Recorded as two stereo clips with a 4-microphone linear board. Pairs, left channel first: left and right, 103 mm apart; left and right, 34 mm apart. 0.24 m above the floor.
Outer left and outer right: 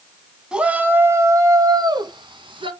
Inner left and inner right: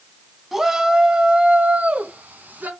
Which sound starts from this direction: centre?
A shout, at 0.5 s.